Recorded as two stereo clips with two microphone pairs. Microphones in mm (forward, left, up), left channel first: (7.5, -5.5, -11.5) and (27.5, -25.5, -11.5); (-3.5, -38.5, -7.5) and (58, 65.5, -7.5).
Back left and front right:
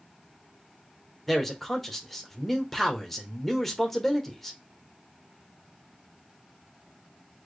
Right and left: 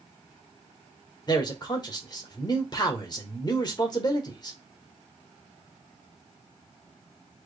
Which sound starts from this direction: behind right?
A man speaking, at 1.3 s.